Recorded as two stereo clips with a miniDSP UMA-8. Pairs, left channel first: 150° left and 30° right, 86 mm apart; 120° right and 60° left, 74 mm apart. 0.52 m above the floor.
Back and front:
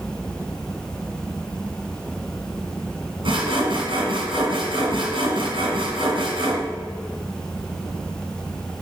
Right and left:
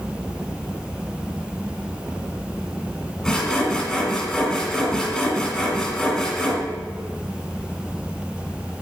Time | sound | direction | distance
3.2 | sawing | 40° right | 1.9 m